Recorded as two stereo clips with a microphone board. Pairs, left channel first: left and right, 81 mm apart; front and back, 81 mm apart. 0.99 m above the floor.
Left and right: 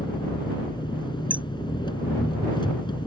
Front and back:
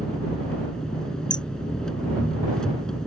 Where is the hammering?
20° right.